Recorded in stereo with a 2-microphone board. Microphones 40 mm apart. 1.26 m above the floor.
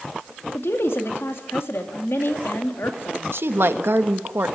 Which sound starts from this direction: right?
A woman speaking, at 3.3 s.